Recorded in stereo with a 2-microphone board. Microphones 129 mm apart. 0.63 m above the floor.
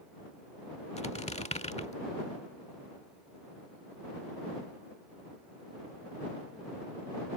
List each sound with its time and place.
1.0 s a squeak: 60° left (ahead or behind)